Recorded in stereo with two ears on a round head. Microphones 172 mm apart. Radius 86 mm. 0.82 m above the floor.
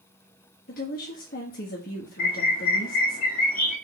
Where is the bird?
50° left (ahead or behind), 2 m.